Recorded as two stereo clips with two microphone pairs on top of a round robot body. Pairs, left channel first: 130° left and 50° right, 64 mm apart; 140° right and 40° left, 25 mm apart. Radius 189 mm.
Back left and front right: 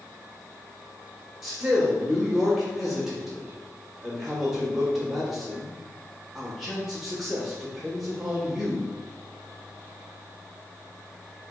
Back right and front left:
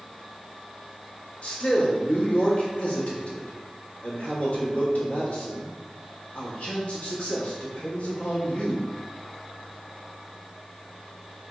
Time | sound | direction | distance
1.4 | a man speaking | 145° right | 1.6 m